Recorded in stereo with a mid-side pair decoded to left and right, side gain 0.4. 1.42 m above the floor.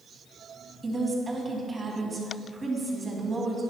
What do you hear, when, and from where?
0.8 s a woman speaking: 30° right, 2.5 m